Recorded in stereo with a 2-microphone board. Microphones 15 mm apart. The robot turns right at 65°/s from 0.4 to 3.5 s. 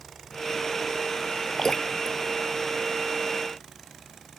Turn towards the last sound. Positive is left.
turn(degrees=15)  # may be behind; listen again after turning